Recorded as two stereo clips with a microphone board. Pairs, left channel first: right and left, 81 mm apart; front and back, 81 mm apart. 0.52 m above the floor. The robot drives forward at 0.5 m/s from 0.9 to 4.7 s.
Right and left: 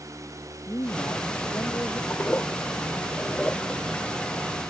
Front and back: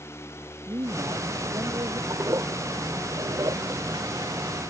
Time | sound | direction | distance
0.7 | a man speaking | 145° right | ?
2.1 | a toilet flushing | 150° right | ?